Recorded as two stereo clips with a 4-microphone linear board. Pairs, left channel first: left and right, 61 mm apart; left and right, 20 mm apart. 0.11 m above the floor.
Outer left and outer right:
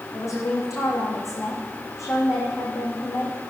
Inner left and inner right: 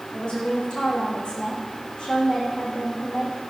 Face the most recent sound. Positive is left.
turn(degrees=55)  # may be behind; listen again after turning